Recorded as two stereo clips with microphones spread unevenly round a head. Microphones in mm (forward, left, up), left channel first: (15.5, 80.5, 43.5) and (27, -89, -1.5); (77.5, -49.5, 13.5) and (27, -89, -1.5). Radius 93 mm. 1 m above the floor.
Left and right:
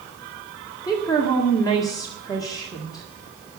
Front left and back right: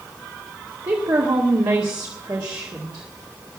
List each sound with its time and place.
0.8 s a woman speaking: 170° left, 1.9 m